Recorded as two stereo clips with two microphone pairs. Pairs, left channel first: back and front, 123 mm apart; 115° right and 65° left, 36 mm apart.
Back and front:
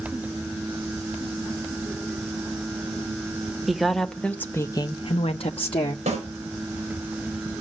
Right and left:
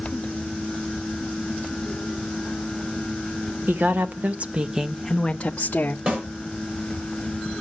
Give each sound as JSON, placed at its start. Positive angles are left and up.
{"t": 3.7, "sound": "a woman speaking", "azimuth_deg": 90, "distance_m": 1.1}
{"t": 6.1, "sound": "a snare drum", "azimuth_deg": 15, "distance_m": 5.0}